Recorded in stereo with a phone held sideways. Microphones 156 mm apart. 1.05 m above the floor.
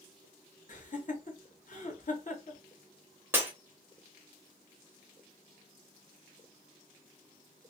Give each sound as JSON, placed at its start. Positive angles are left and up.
{"t": 0.7, "sound": "laughter", "side_deg": 55, "distance_m": 1.0}
{"t": 3.3, "sound": "breaking glass", "side_deg": -15, "distance_m": 0.8}